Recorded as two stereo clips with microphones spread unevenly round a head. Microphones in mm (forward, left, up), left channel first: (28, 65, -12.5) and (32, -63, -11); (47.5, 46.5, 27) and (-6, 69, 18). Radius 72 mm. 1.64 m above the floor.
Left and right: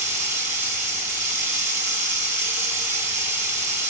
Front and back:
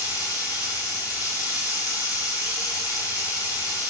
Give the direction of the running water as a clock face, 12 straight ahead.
4 o'clock.